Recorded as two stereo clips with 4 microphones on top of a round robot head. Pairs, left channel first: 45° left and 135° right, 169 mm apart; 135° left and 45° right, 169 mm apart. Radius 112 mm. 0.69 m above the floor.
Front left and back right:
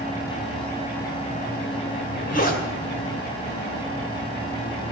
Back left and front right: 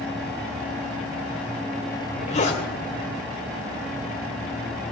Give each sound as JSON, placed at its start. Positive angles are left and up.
{"t": 1.9, "sound": "a zipper", "azimuth_deg": 85, "distance_m": 2.5}